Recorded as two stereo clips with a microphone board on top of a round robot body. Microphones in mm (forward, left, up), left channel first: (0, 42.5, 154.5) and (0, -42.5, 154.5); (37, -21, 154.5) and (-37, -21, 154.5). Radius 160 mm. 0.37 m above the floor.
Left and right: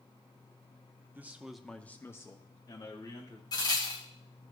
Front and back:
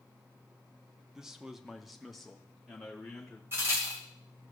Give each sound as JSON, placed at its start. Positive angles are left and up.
{"t": 1.1, "sound": "a man speaking", "azimuth_deg": -110, "distance_m": 1.0}
{"t": 3.5, "sound": "a crack", "azimuth_deg": 125, "distance_m": 2.5}